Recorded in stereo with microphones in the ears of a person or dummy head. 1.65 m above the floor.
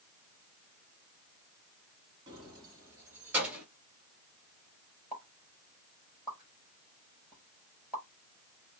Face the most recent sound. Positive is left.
turn(degrees=-5)  # may be behind; listen again after turning